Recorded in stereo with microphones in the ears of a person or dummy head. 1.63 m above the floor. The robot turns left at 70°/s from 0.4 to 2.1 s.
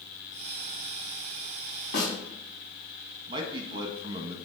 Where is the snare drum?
65° left (ahead or behind), 4 m; by 2.1 s 75° left (ahead or behind), 4 m.